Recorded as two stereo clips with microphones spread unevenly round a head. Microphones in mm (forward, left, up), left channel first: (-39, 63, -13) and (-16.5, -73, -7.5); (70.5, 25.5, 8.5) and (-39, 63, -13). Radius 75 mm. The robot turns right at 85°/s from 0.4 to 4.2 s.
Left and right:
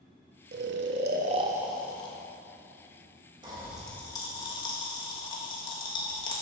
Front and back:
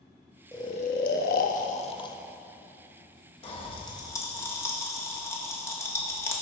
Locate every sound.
0.5 s snoring: 95° right, 0.5 m; by 2.2 s 45° left, 0.5 m
3.4 s a pop: 25° right, 1.3 m; by 6.4 s 40° left, 1.3 m